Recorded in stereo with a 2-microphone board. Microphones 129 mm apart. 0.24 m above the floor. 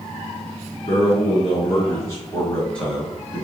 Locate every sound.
0.9 s a man speaking: 45° left (ahead or behind), 1.9 m; by 3.4 s 15° right (ahead or behind), 1.3 m